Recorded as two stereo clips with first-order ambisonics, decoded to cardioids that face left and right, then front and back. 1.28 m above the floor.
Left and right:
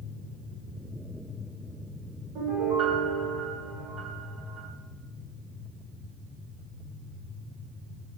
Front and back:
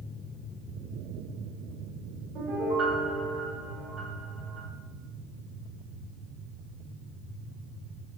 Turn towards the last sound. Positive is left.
turn(degrees=-130)